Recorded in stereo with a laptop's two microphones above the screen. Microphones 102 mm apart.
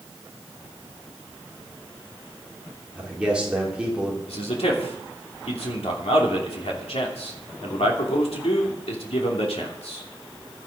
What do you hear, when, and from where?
3.0 s a man speaking: 10° right (ahead or behind), 3.5 m
4.3 s a man speaking: 85° left, 2.5 m